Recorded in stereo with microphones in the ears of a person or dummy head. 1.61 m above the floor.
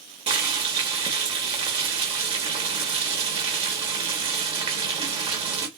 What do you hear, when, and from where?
0.3 s boiling: 30° right (ahead or behind), 1.2 m